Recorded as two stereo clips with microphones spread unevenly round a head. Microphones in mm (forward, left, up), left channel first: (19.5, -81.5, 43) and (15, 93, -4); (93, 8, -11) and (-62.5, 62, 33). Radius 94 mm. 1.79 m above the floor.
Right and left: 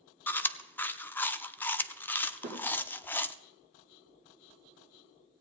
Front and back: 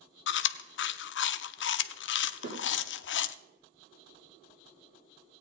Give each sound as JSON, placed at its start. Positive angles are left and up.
{"t": 0.3, "sound": "chewing", "azimuth_deg": -10, "distance_m": 0.6}
{"t": 2.4, "sound": "a snare drum", "azimuth_deg": 140, "distance_m": 5.0}